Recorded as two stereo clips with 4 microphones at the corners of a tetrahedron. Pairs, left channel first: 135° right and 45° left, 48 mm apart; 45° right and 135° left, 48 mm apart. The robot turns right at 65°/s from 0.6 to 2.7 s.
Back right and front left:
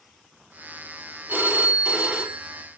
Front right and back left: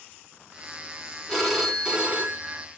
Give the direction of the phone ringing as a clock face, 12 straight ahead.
11 o'clock.